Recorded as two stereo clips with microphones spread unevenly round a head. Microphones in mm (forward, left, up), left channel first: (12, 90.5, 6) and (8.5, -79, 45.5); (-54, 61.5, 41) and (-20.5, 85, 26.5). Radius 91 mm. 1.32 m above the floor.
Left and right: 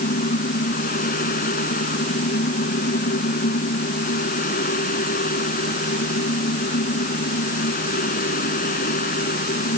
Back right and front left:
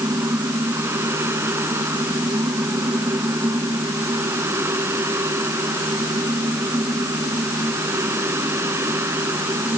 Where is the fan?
45° left.